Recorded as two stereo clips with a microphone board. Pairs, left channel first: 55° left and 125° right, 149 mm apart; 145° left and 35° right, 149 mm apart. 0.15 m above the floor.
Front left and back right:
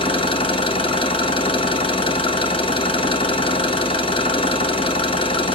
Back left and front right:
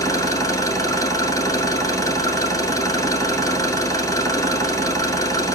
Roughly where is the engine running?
Left.